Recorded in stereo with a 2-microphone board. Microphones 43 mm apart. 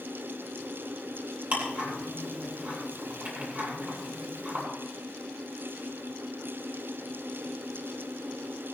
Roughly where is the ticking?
Right.